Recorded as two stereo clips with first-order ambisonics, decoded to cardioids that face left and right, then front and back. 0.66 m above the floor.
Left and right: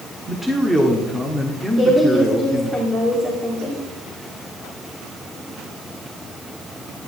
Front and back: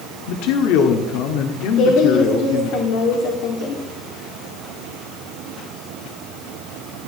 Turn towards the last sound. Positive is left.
turn(degrees=-15)